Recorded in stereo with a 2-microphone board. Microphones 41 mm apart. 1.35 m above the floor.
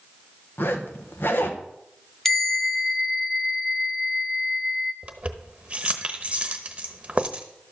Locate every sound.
0.6 s a zipper: 70° left (ahead or behind), 1.0 m
2.2 s a bell: 10° left (ahead or behind), 1.0 m
5.0 s keys jangling: 30° right (ahead or behind), 0.9 m